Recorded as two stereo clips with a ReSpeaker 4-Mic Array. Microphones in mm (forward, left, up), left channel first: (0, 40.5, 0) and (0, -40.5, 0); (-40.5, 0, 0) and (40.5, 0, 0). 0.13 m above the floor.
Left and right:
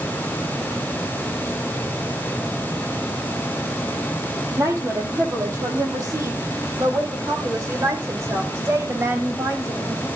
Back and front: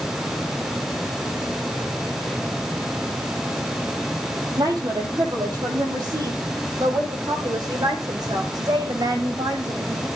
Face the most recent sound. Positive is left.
turn(degrees=-35)